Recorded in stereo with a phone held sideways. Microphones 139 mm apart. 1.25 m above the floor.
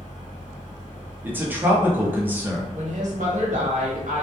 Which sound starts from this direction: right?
A woman speaking, at 2.7 s.